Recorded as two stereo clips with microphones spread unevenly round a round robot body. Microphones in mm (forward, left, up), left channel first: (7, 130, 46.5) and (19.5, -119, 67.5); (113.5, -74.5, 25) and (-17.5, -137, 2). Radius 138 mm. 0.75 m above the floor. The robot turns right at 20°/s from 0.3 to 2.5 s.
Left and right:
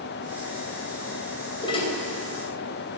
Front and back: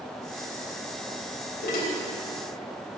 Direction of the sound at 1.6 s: 20° left.